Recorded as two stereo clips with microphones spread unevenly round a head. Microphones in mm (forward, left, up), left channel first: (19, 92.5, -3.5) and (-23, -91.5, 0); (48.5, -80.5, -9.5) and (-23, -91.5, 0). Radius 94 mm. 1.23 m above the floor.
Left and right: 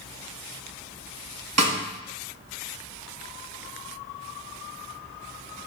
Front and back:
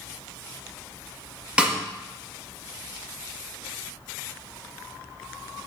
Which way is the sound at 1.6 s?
95° right.